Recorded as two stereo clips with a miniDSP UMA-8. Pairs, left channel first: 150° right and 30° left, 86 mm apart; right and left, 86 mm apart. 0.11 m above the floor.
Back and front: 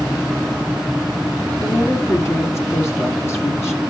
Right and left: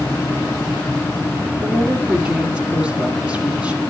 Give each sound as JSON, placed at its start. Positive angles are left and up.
{"t": 1.6, "sound": "a woman speaking", "azimuth_deg": 165, "distance_m": 1.8}